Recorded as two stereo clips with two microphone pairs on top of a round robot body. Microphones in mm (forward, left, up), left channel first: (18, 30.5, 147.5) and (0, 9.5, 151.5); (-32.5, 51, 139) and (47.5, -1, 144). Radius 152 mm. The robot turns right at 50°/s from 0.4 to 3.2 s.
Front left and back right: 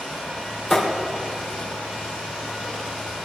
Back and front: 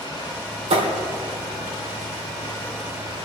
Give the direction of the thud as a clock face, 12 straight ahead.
1 o'clock.